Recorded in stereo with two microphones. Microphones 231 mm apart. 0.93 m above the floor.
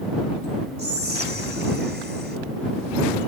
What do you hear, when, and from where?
0.8 s whispering: 45° right (ahead or behind)